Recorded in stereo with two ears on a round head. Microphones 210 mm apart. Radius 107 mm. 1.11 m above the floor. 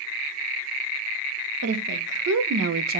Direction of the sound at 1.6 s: 70° right (ahead or behind).